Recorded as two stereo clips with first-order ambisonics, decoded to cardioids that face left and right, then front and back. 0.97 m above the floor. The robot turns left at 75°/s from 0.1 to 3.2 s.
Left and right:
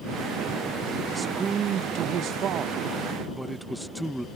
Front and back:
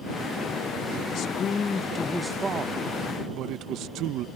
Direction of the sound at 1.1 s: 15° right.